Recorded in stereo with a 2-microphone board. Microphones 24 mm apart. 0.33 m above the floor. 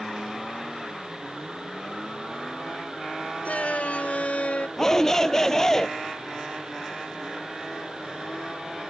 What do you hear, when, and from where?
3.5 s a shout: 65° left (ahead or behind); by 4.7 s 60° left (ahead or behind)
4.8 s a shout: 20° left (ahead or behind)